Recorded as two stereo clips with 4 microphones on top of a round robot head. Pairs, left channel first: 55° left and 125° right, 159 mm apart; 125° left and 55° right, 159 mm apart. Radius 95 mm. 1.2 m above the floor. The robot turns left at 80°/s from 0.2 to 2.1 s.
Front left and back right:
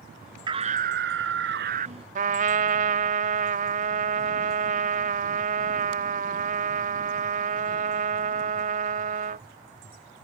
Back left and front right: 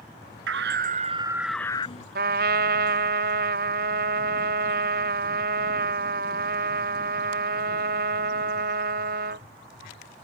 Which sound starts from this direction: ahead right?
A scream, at 0.5 s.